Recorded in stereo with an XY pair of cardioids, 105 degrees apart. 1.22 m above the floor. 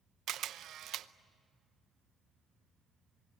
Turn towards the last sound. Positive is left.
turn(degrees=-65)